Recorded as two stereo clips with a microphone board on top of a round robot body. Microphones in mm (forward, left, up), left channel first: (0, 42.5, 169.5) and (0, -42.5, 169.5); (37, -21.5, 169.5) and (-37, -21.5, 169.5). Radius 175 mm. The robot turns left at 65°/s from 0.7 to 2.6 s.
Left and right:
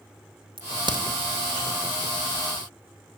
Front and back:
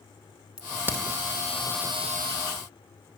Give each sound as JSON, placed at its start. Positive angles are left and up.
{"t": 0.6, "sound": "a crack", "azimuth_deg": -105, "distance_m": 2.0}